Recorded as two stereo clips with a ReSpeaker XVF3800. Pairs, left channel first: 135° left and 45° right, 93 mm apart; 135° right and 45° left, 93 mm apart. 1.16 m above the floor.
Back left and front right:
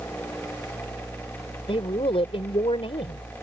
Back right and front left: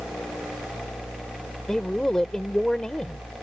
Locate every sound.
1.7 s a man speaking: 140° left